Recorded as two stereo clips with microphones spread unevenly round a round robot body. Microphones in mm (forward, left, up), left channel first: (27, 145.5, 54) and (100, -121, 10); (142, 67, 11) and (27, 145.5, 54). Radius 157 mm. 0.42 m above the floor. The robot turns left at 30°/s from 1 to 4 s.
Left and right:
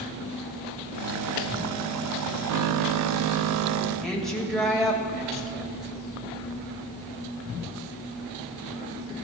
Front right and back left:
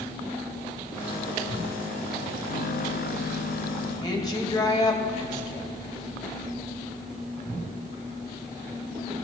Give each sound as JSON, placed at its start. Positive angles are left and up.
{"t": 4.0, "sound": "a woman speaking", "azimuth_deg": 10, "distance_m": 2.5}